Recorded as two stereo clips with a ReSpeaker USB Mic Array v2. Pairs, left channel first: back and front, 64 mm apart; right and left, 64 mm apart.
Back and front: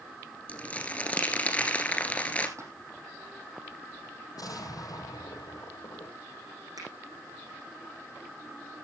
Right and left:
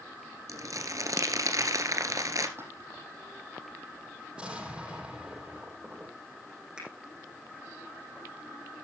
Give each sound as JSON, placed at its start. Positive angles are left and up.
{"t": 0.5, "sound": "crumpling", "azimuth_deg": 115, "distance_m": 1.9}
{"t": 2.6, "sound": "a splash", "azimuth_deg": 40, "distance_m": 4.5}
{"t": 4.3, "sound": "an explosion", "azimuth_deg": 165, "distance_m": 7.5}
{"t": 6.8, "sound": "a finger snap", "azimuth_deg": 15, "distance_m": 7.0}